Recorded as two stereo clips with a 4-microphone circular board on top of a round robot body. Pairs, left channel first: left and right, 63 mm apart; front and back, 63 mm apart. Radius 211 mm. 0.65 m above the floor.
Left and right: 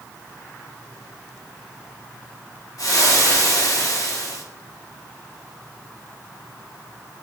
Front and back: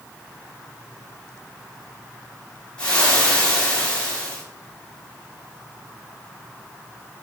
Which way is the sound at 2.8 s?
75° left.